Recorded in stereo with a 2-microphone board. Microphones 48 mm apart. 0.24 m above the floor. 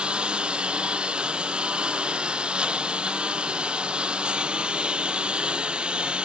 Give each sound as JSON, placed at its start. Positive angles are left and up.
{"t": 0.0, "sound": "a lawn mower", "side_deg": -20}